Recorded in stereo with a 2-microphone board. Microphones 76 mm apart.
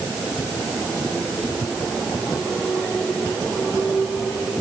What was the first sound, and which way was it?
Only background noise.